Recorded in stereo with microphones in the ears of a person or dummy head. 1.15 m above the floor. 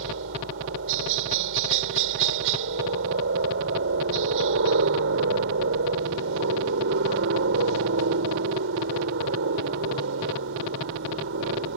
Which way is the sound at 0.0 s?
65° right (ahead or behind).